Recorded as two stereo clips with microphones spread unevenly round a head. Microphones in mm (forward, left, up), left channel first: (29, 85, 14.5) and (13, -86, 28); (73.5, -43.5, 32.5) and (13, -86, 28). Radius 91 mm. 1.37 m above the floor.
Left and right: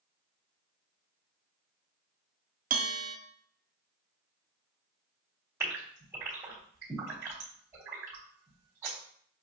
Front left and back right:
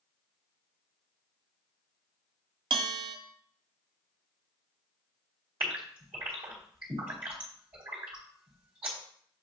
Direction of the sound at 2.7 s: 140° right.